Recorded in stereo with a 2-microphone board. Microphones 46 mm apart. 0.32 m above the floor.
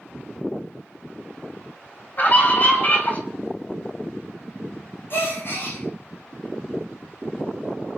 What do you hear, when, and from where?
2.2 s a scream: 40° left (ahead or behind), 3.5 m
5.1 s a gasp: 50° left (ahead or behind), 9 m